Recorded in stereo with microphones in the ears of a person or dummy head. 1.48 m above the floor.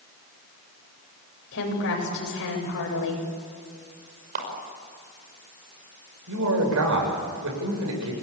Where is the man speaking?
85° right, 7.5 m.